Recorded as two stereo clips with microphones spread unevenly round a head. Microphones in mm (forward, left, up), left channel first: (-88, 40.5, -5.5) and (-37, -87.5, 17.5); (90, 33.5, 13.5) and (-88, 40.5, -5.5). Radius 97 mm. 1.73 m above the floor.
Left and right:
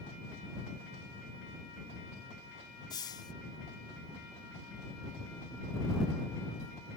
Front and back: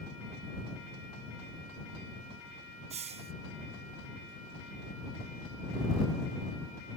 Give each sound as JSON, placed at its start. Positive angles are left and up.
{"t": 2.9, "sound": "a hiss", "azimuth_deg": 160}